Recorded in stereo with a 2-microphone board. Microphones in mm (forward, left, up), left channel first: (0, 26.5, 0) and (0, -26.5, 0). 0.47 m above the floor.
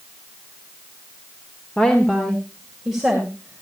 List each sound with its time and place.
1.8 s a woman speaking: 15° left (ahead or behind), 1.5 m; by 3.6 s 15° right (ahead or behind), 2.5 m